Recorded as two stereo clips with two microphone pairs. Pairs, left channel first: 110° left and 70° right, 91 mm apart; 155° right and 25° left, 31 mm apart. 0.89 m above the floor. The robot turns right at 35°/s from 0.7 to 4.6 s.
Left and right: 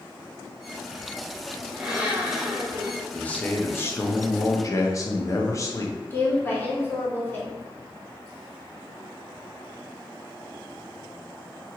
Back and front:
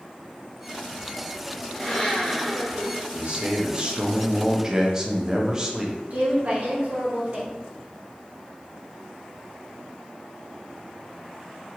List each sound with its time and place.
1.7 s a blender: 140° right, 0.6 m; by 3.0 s 95° right, 0.6 m
3.1 s a man speaking: 35° left, 0.5 m; by 6.0 s 85° left, 0.5 m
6.1 s a woman speaking: 45° left, 1.0 m